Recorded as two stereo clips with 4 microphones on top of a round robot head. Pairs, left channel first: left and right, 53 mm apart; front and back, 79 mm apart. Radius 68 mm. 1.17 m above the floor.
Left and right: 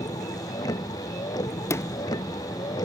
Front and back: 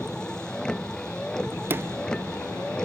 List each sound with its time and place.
0.0 s a vehicle: 80° left
1.6 s a sliding door: 115° left